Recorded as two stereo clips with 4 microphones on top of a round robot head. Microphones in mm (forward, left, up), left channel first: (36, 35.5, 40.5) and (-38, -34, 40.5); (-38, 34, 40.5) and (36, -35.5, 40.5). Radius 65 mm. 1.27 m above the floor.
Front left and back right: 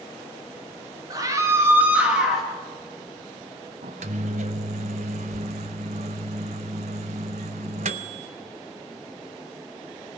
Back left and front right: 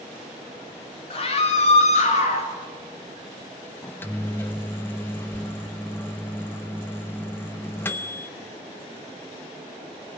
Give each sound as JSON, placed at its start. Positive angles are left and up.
{"t": 1.1, "sound": "a scream", "azimuth_deg": 170, "distance_m": 2.0}
{"t": 3.8, "sound": "a microwave", "azimuth_deg": -155, "distance_m": 0.6}